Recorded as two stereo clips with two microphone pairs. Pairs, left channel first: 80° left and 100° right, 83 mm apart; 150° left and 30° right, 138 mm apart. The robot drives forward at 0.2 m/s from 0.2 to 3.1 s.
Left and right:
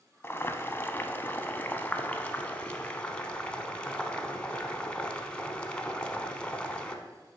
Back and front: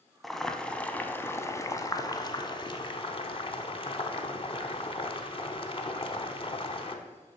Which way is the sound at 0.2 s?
65° left.